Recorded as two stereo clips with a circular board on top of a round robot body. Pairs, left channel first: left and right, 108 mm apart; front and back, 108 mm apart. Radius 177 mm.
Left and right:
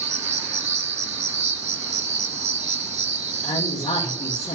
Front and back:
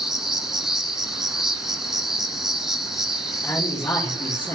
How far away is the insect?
About 0.8 m.